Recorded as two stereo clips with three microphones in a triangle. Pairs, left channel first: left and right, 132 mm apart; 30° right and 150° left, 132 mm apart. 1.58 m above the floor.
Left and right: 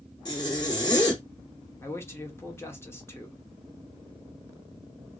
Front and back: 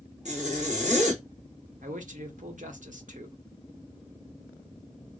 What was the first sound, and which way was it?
A zipper, 145° left.